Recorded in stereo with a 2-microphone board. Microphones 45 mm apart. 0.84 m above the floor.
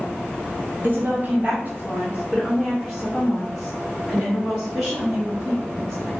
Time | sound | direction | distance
0.8 | a woman speaking | 45° right (ahead or behind) | 1.1 m